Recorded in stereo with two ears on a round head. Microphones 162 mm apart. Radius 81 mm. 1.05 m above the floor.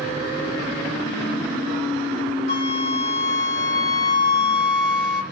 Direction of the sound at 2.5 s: 60° left (ahead or behind).